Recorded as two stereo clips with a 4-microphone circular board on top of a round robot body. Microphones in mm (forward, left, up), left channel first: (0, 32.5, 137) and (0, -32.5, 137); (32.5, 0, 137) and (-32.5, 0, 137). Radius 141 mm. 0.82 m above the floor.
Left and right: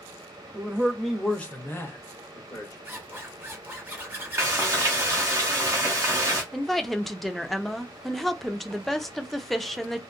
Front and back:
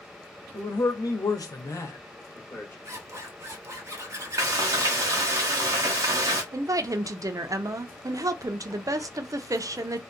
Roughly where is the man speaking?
Ahead right.